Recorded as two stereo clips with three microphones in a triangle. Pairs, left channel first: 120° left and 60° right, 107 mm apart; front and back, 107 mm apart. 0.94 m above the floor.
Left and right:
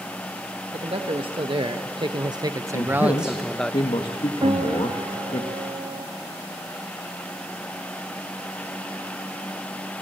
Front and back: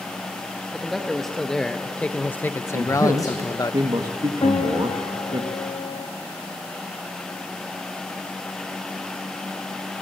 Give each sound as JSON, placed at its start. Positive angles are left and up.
{"t": 0.7, "sound": "a man speaking", "azimuth_deg": -90, "distance_m": 1.2}
{"t": 2.7, "sound": "a man speaking", "azimuth_deg": 140, "distance_m": 1.4}
{"t": 4.4, "sound": "a piano", "azimuth_deg": -30, "distance_m": 1.0}